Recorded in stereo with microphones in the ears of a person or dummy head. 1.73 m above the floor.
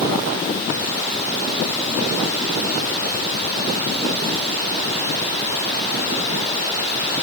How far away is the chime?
I don't hear a chime.